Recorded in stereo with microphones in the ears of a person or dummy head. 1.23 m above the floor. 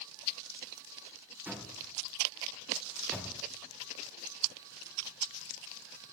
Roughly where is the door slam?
Centre.